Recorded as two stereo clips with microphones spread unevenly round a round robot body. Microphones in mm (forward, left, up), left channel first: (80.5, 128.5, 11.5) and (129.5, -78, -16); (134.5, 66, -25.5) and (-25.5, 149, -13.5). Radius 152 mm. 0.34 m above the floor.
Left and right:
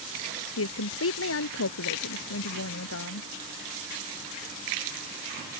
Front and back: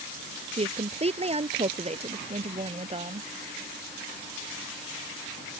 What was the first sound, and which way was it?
A woman speaking, 100° left.